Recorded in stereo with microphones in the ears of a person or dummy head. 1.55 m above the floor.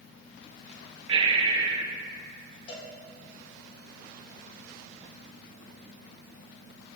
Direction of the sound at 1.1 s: 30° right (ahead or behind).